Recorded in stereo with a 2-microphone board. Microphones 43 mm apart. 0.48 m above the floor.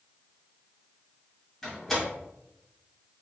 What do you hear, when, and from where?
1.6 s a door slam: 5° left (ahead or behind), 2 m